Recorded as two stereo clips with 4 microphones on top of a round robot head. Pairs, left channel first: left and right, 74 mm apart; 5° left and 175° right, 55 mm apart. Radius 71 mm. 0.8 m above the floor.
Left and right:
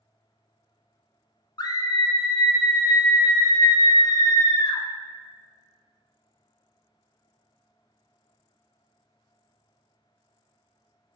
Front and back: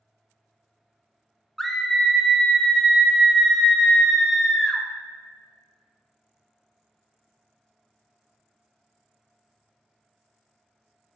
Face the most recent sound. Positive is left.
turn(degrees=90)